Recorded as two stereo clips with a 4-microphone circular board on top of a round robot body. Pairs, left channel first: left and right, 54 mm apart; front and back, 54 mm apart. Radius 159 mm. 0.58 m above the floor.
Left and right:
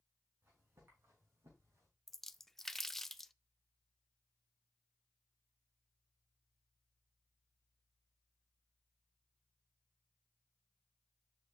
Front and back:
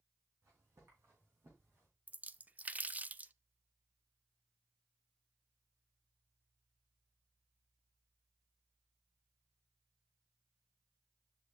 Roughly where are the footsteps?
Behind right.